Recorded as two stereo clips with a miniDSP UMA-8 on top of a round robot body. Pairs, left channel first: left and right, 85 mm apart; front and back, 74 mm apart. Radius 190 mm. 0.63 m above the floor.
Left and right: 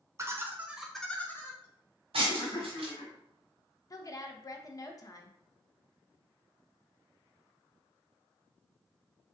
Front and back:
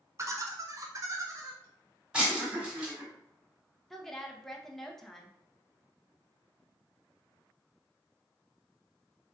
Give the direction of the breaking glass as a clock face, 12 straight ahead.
3 o'clock.